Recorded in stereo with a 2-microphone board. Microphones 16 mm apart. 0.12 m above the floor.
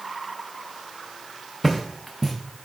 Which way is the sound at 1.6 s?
15° left (ahead or behind).